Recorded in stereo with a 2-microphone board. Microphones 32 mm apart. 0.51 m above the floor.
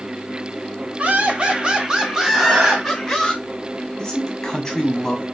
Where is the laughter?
45° right (ahead or behind), 1.0 m; by 3.3 s 10° left (ahead or behind), 1.2 m.